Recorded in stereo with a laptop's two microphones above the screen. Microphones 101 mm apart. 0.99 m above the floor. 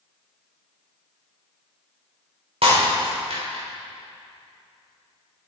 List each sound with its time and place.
2.6 s breaking glass: 65° right (ahead or behind), 2.5 m